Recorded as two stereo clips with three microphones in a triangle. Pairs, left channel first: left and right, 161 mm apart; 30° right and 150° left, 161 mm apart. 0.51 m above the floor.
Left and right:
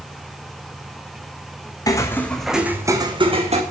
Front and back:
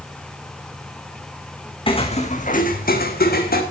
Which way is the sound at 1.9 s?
25° left.